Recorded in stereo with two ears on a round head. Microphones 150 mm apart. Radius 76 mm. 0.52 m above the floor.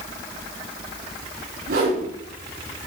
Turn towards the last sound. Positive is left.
turn(degrees=-65)  # may be behind; listen again after turning